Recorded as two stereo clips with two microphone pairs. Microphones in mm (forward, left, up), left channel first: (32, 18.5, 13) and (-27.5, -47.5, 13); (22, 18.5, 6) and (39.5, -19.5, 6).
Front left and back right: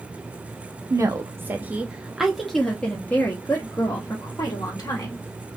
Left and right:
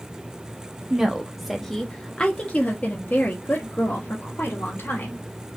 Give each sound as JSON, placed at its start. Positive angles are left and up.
{"t": 0.9, "sound": "a woman speaking", "azimuth_deg": -125, "distance_m": 1.0}